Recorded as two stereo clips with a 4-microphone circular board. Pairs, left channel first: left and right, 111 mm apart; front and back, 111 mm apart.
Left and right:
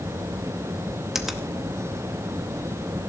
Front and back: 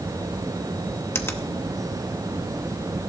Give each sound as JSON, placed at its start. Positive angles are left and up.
{"t": 1.1, "sound": "a finger snap", "azimuth_deg": -10, "distance_m": 1.1}